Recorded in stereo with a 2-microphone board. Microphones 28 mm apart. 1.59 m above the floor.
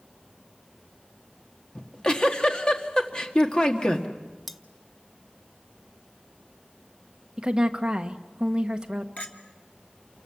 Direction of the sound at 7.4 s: 30° right (ahead or behind).